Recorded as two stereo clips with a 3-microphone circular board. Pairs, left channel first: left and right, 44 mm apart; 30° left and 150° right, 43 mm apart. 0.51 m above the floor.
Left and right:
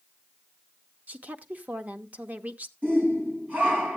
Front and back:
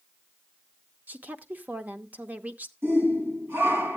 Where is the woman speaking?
120° right, 0.9 m.